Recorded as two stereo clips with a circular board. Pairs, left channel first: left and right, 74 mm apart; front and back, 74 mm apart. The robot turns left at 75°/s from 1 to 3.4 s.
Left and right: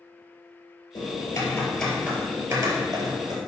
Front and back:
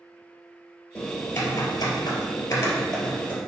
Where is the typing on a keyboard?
70° left, 2.5 m; by 3.4 s 110° right, 2.5 m.